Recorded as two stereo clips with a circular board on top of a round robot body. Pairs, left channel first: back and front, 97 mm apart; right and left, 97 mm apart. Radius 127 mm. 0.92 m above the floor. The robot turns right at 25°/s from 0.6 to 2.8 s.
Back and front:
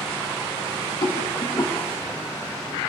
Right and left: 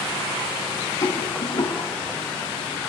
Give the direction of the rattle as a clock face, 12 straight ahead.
5 o'clock.